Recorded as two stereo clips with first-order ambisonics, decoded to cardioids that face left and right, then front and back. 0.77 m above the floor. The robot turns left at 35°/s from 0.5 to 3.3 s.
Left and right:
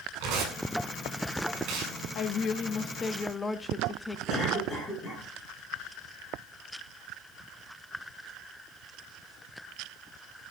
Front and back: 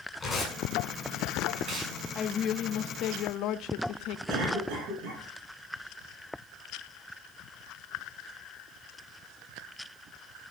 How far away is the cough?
About 9.5 m.